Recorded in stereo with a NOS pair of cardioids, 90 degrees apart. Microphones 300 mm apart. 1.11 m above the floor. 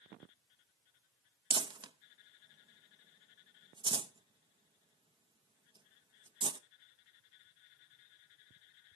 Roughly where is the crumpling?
Ahead.